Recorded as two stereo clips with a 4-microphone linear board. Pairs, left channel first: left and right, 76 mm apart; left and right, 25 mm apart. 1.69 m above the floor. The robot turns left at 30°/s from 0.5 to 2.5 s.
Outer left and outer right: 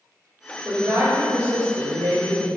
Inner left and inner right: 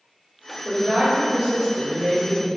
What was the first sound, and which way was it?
A woman speaking, 40° right.